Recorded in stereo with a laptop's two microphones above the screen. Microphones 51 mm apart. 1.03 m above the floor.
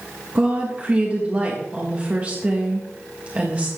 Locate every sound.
0.3 s a woman speaking: 25° right (ahead or behind), 1.6 m